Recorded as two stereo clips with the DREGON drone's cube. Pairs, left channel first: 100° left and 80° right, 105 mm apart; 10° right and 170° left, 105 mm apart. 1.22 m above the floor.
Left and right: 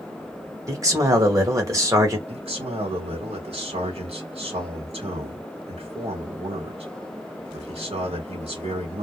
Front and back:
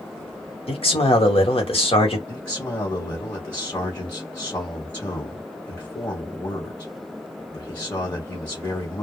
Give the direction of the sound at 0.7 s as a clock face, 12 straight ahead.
1 o'clock.